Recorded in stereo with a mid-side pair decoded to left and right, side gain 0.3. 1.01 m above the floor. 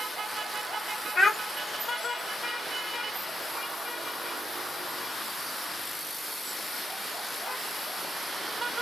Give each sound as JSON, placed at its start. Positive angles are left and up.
{"t": 1.1, "sound": "a child speaking", "azimuth_deg": 60, "distance_m": 1.1}